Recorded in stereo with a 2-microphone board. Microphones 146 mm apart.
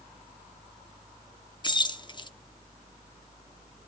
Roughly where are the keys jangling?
Left.